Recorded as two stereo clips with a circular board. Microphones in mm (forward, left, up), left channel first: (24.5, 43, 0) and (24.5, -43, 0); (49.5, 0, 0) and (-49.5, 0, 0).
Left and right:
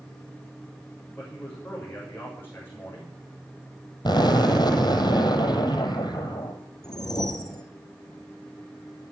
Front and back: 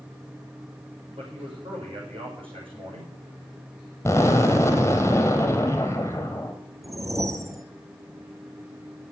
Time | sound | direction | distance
1.2 | a man speaking | 155° left | 8 m
4.0 | an explosion | 65° left | 2 m
6.8 | a whoosh | 125° left | 1.1 m